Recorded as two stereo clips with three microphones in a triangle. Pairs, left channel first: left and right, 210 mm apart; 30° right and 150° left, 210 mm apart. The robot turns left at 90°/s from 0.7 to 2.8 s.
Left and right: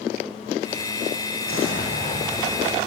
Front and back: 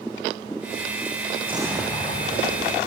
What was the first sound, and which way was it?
An explosion, 90° left.